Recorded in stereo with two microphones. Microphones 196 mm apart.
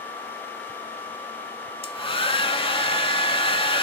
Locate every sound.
1.8 s a hair dryer: 30° left (ahead or behind), 0.6 m